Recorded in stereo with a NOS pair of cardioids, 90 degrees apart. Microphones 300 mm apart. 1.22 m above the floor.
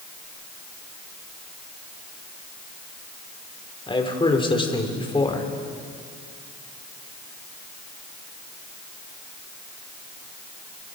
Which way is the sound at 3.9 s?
15° left.